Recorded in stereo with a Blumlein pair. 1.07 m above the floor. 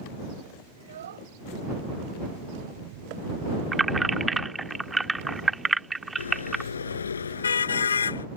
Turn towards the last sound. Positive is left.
turn(degrees=70)